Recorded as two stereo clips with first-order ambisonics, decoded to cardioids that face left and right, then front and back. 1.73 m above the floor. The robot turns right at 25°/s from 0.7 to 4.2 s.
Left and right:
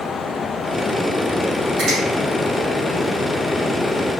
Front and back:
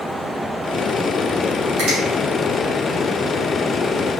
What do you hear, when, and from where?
1.8 s a finger snap: 145° right, 2.5 m; by 2.0 s 140° right, 2.5 m